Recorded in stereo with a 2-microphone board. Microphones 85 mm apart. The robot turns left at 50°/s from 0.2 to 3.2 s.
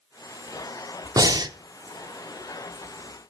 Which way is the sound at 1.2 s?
45° right (ahead or behind).